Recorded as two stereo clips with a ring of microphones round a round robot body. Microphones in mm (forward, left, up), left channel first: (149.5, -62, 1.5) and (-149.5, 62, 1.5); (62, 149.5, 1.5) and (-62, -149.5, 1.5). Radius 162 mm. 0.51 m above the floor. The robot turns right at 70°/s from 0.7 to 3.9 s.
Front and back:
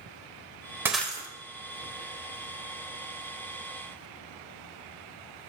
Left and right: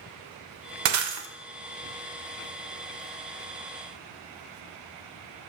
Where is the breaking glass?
120° right, 0.9 m; by 1.3 s 90° right, 0.9 m.